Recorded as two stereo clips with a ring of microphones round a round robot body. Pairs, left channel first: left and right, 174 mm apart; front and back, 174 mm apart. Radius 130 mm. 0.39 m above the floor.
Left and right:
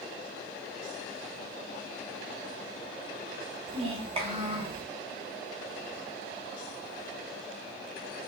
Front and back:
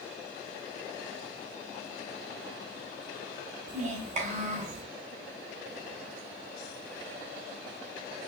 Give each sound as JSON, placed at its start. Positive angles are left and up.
{"t": 3.7, "sound": "a child speaking", "azimuth_deg": -140, "distance_m": 0.9}